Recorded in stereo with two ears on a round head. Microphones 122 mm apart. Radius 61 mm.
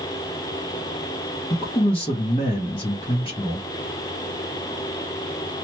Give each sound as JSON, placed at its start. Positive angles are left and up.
{"t": 1.5, "sound": "a man speaking", "side_deg": 40, "distance_m": 1.0}